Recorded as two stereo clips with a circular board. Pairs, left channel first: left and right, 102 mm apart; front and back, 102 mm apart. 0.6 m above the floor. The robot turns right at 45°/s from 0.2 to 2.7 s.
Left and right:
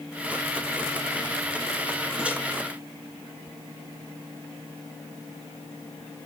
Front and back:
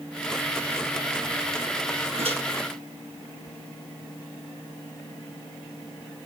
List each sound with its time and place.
2.2 s a microwave: 170° right, 3.5 m; by 2.4 s 160° right, 3.5 m